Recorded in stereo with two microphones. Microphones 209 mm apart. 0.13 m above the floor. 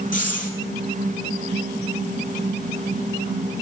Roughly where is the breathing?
Left.